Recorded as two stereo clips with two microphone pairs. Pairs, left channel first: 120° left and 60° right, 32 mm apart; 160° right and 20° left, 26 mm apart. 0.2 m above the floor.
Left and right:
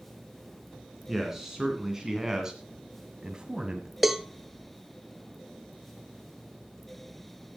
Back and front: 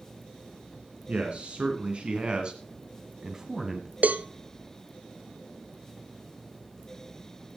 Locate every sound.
1.1 s a man speaking: 15° left, 2.5 m; by 3.9 s 45° right, 1.6 m
4.0 s a cowbell: 25° left, 0.7 m